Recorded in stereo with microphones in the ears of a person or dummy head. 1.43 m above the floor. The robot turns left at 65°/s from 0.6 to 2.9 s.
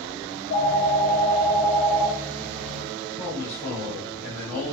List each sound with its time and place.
0.3 s a phone ringing: 85° left, 1.5 m; by 3.1 s 65° right, 1.5 m
3.2 s a man speaking: 15° left (ahead or behind), 2 m